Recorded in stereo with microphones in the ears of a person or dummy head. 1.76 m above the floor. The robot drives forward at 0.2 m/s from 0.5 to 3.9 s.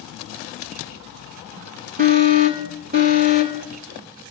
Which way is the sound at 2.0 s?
30° right (ahead or behind).